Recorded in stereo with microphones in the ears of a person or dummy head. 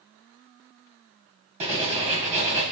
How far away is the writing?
About 1.1 m.